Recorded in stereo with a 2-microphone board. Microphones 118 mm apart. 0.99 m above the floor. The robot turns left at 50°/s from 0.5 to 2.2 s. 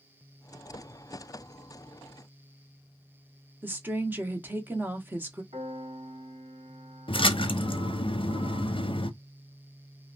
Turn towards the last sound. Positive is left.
turn(degrees=50)  # may be behind; listen again after turning